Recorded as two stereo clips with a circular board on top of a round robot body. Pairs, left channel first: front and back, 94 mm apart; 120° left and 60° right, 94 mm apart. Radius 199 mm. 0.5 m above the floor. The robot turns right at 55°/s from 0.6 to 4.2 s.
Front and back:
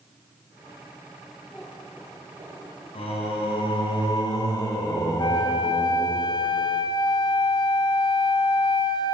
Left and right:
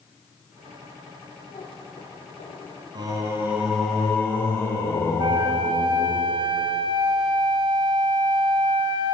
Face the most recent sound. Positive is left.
turn(degrees=-35)